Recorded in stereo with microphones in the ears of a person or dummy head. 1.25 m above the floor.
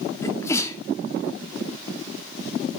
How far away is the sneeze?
About 2 m.